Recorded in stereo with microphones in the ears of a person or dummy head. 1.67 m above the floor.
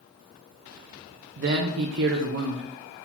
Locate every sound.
1.4 s a man speaking: 70° right (ahead or behind), 0.5 m